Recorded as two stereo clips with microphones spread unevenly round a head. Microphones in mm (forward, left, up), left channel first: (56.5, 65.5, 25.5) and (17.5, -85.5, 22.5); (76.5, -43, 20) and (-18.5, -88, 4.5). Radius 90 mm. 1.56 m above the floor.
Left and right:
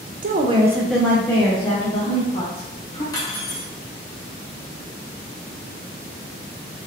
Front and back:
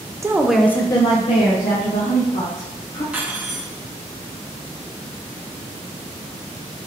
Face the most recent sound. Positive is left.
turn(degrees=120)